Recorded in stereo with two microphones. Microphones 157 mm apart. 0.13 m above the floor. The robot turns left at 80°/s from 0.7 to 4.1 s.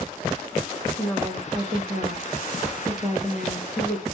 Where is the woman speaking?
20° left, 5.5 m; by 4.0 s 135° left, 5.5 m.